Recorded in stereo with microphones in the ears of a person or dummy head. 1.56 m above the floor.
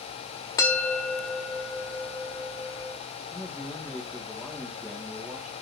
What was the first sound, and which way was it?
A bell, 20° left (ahead or behind).